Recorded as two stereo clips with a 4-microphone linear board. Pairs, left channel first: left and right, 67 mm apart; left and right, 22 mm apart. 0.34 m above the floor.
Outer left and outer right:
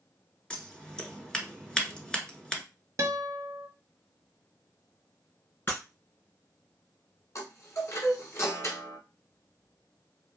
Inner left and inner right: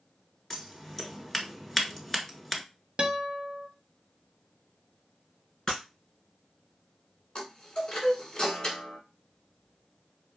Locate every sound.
0.5 s scissors: 10° left (ahead or behind), 0.9 m
3.0 s a guitar: 50° right (ahead or behind), 0.6 m
5.7 s breaking glass: 35° left (ahead or behind), 1.9 m
7.3 s a chime: 45° left (ahead or behind), 1.2 m